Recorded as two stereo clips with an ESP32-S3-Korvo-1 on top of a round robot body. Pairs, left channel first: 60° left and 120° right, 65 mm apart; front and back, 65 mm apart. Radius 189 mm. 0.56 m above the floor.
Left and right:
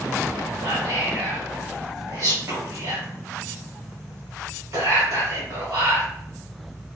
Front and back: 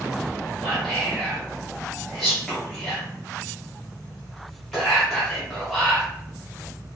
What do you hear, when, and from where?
0.6 s whispering: 85° right, 1.4 m